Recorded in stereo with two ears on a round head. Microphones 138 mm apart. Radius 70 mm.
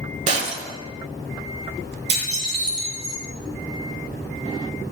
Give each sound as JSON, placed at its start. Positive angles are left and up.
{"t": 0.3, "sound": "breaking glass", "side_deg": -45, "distance_m": 1.5}
{"t": 2.1, "sound": "dishes clattering", "side_deg": -40, "distance_m": 4.5}